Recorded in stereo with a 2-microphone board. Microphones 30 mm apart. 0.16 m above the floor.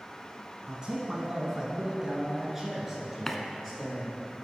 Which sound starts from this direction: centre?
A running tap, at 3.3 s.